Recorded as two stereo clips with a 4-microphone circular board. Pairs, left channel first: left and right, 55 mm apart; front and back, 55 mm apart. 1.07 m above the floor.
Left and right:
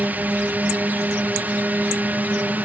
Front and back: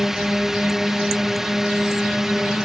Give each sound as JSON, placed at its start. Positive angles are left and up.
{"t": 0.0, "sound": "a drone", "azimuth_deg": -100}